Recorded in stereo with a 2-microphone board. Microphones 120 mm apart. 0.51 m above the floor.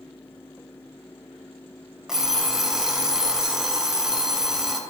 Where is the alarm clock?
5° right (ahead or behind), 0.9 m.